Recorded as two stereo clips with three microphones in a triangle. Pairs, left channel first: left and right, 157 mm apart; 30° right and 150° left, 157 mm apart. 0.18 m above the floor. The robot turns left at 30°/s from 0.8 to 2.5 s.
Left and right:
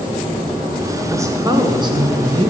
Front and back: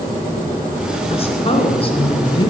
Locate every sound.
1.1 s a woman speaking: 30° right, 1.6 m; by 2.5 s 70° right, 1.6 m